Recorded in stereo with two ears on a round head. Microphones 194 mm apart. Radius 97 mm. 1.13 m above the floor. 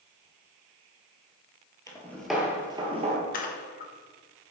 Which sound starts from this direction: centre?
Footsteps, at 1.9 s.